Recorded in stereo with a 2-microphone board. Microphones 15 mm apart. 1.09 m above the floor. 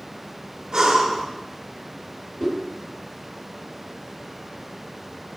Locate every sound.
0.7 s breathing: 70° right (ahead or behind), 1.7 m
2.4 s a whoosh: 45° left (ahead or behind), 5 m